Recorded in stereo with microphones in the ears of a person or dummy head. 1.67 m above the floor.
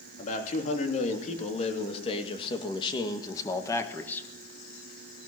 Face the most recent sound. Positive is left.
turn(degrees=5)  # may be behind; listen again after turning